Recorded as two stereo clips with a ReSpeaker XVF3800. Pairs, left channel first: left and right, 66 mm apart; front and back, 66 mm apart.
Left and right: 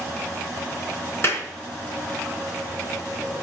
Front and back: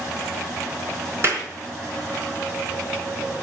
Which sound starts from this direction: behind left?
A clap, at 1.2 s.